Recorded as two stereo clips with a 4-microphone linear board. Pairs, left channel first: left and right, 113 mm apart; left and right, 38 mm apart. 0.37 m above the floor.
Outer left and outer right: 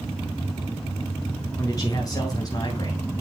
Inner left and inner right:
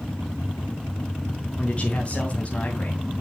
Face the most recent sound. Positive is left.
turn(degrees=35)  # may be behind; listen again after turning